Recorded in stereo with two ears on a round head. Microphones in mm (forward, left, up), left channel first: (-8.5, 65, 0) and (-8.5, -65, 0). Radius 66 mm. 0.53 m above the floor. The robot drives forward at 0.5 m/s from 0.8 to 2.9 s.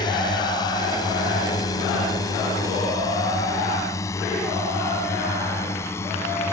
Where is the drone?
30° left (ahead or behind); by 6.5 s 15° left (ahead or behind).